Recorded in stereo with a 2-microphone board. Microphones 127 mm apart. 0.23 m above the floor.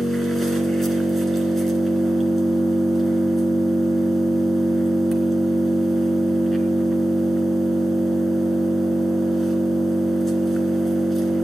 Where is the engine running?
Centre (ahead or behind), 2.0 m.